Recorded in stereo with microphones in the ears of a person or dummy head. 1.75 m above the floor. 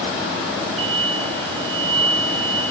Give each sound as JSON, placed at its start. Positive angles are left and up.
{"t": 0.8, "sound": "an explosion", "side_deg": -35, "distance_m": 6.0}